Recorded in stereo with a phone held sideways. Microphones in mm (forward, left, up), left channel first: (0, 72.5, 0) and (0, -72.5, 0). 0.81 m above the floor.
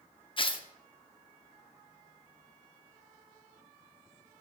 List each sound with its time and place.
0.4 s tearing paper: 35° left (ahead or behind), 0.6 m